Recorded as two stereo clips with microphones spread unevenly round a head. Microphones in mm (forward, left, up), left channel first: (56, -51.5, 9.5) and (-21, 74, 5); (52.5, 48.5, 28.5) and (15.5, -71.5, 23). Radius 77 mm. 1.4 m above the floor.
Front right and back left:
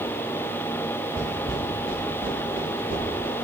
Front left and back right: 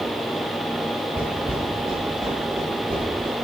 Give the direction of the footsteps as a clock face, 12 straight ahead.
6 o'clock.